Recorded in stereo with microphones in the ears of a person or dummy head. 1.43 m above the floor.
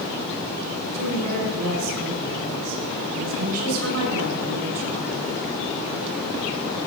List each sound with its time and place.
0.9 s a woman speaking: 85° right, 6 m